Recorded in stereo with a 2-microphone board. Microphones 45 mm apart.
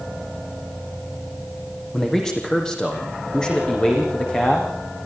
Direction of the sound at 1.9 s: 10° left (ahead or behind).